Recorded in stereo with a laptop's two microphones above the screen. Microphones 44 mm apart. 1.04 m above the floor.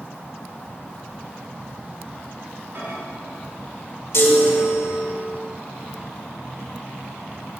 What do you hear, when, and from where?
2.8 s a microwave: 55° right (ahead or behind), 4.5 m
4.1 s a chime: 65° left (ahead or behind), 1.7 m